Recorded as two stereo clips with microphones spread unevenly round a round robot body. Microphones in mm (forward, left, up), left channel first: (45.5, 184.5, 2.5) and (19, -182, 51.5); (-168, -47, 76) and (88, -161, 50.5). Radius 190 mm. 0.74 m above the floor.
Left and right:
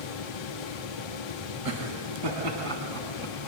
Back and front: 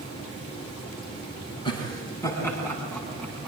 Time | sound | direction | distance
1.6 | laughter | 130° right | 8 m